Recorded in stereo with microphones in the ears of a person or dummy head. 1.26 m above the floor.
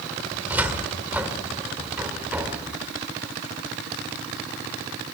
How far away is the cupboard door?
About 1.9 m.